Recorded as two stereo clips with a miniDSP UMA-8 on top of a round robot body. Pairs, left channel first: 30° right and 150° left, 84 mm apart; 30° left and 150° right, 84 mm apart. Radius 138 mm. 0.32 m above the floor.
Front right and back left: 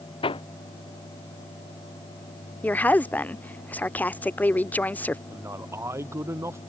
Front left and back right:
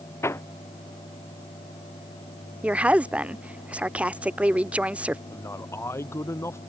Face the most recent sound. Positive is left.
turn(degrees=90)